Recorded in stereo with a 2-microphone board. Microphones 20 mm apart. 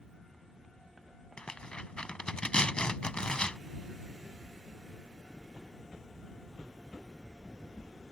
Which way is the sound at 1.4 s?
55° left (ahead or behind).